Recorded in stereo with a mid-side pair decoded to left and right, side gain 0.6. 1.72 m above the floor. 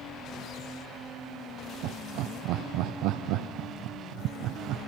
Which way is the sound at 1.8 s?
70° right.